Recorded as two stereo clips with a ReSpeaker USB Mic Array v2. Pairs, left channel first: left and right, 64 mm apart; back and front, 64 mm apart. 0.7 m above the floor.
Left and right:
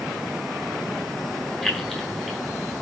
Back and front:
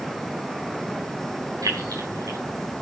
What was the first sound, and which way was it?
Keys jangling, 5° left.